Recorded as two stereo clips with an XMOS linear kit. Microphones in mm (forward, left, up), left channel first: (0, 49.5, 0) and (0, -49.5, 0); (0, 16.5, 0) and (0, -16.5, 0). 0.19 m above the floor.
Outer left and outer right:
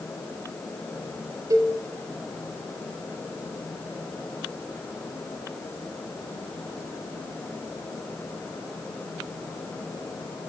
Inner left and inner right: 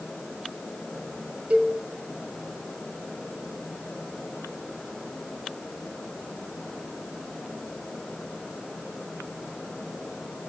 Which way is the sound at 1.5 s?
35° right (ahead or behind).